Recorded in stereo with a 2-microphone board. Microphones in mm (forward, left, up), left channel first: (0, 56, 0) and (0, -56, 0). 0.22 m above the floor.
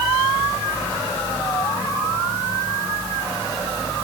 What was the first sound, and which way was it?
Only background noise.